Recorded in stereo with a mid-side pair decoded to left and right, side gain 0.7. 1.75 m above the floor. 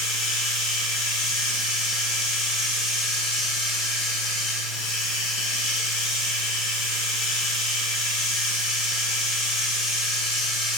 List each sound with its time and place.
0.0 s running water: 55° left, 2.5 m